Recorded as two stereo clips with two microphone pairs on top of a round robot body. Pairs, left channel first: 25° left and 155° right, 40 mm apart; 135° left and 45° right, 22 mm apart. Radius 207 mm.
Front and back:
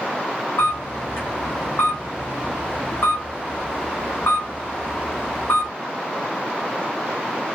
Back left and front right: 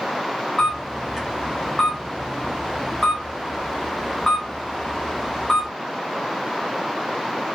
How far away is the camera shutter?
About 0.6 m.